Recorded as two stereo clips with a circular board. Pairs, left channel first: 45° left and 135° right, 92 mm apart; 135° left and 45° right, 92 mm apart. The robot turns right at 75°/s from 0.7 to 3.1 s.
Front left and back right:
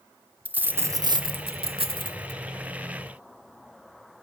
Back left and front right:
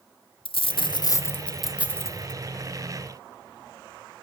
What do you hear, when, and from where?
0.5 s a dropped coin: 155° left, 0.5 m; by 2.4 s 80° right, 0.5 m